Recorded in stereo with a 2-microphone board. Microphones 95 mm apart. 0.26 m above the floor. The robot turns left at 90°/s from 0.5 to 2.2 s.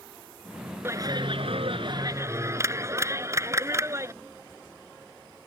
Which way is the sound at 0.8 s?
25° right.